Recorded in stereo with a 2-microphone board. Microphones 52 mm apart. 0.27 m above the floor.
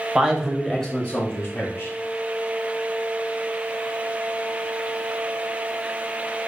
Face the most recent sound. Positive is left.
turn(degrees=45)  # may be behind; listen again after turning